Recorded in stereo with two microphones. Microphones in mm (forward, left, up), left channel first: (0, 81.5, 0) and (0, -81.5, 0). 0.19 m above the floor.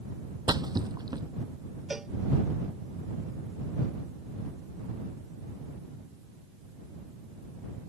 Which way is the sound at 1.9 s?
5° right (ahead or behind).